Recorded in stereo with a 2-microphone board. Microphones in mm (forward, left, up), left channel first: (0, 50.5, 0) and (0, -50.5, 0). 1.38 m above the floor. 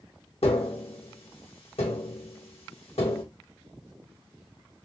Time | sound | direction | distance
0.4 | tapping | 75° left (ahead or behind) | 1.2 m